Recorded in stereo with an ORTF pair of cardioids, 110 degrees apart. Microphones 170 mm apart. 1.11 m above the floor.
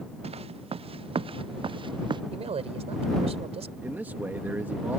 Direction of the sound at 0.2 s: 35° right.